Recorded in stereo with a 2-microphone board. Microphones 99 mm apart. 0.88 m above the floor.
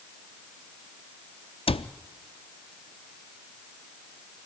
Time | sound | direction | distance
1.7 | a cupboard door | 70° left (ahead or behind) | 0.6 m